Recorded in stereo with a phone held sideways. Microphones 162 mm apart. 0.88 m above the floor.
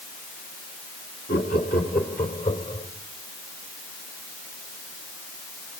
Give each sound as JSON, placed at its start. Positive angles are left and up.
{"t": 1.3, "sound": "laughter", "side_deg": 75, "distance_m": 2.0}